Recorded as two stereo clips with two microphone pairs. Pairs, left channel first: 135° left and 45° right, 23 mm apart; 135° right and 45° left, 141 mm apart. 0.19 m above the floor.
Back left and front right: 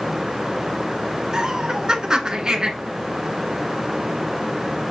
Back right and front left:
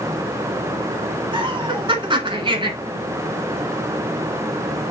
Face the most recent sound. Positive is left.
turn(degrees=5)